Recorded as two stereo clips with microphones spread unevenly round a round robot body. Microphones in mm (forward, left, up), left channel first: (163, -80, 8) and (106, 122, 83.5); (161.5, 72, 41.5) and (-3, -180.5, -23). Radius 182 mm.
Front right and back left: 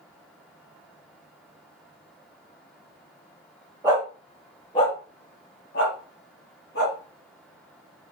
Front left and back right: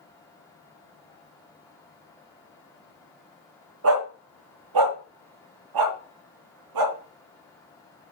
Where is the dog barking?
175° right, 0.7 m; by 7.0 s 125° right, 2 m.